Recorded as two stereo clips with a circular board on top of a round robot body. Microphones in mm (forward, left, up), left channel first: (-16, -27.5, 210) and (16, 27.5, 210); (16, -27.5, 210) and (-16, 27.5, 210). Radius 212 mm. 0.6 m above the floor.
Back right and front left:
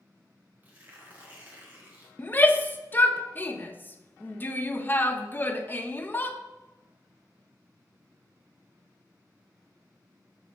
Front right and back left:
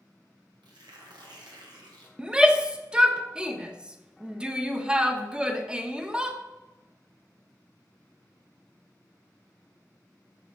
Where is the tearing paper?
125° left, 1.1 m.